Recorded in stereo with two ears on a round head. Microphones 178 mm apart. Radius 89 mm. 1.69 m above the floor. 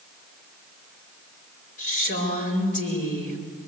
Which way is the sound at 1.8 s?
40° left (ahead or behind).